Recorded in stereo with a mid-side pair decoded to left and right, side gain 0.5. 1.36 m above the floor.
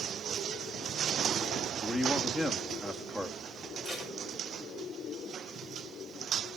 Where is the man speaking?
10° right, 2 m.